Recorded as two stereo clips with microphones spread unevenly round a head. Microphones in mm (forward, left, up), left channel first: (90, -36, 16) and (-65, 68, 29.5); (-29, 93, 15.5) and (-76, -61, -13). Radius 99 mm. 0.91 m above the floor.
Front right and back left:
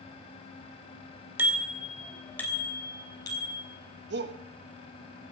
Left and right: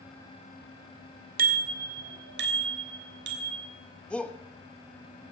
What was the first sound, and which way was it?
A bicycle bell, 135° right.